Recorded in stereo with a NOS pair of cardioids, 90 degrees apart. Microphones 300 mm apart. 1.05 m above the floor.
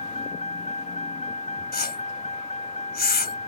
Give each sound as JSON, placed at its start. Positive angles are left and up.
{"t": 0.0, "sound": "a vehicle", "azimuth_deg": 20}
{"t": 1.7, "sound": "a whoosh", "azimuth_deg": 30}